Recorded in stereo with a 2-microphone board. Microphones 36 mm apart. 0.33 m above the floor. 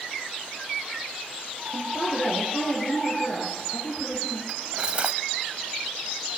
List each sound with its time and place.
1.7 s a woman speaking: 50° left (ahead or behind), 9.5 m
4.5 s cutlery clinking: 30° right (ahead or behind), 0.9 m